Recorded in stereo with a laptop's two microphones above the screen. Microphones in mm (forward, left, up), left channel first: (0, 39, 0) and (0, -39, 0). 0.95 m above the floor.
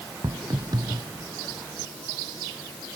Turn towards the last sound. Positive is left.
turn(degrees=-60)  # may be behind; listen again after turning